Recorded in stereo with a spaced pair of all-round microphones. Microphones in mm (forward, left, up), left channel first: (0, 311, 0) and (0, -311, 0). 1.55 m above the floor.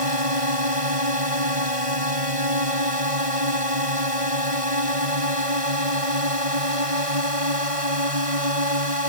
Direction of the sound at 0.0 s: 60° right (ahead or behind).